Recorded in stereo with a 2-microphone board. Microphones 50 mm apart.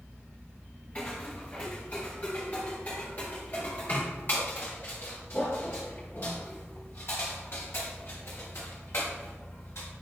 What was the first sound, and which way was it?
Footsteps, 25° left (ahead or behind).